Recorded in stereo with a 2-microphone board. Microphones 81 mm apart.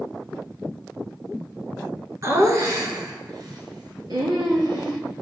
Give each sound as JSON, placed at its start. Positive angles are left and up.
{"t": 2.2, "sound": "laughter", "side_deg": -40, "distance_m": 1.5}